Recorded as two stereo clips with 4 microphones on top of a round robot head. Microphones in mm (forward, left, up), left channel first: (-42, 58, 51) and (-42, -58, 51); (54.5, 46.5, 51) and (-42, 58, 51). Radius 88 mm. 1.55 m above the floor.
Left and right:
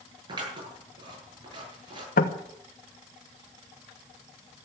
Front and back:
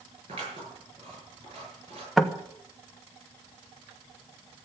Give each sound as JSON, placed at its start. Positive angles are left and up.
{"t": 0.3, "sound": "scissors", "azimuth_deg": -140, "distance_m": 8.5}
{"t": 2.2, "sound": "knocking", "azimuth_deg": 80, "distance_m": 1.3}